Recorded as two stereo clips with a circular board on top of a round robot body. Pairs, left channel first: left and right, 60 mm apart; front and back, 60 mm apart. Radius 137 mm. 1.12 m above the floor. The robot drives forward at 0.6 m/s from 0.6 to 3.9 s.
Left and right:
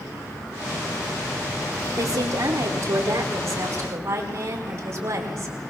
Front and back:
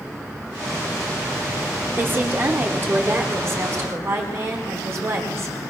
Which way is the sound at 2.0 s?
125° right.